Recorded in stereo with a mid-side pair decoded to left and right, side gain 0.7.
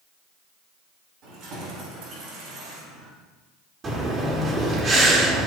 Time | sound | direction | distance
1.2 | keys jangling | 60° right | 4 m
3.8 | breathing | 30° right | 2.5 m